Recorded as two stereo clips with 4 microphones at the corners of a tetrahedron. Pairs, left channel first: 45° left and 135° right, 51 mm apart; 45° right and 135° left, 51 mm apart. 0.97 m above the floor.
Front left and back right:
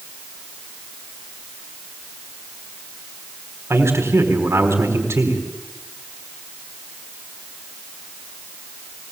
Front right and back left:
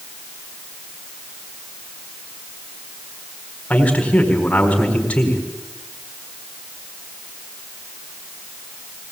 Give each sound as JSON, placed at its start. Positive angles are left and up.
{"t": 3.7, "sound": "a man speaking", "azimuth_deg": -110, "distance_m": 4.0}